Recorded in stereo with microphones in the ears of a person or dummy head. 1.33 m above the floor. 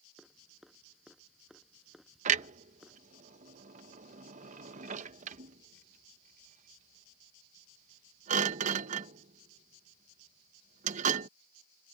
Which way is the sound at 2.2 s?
40° right (ahead or behind).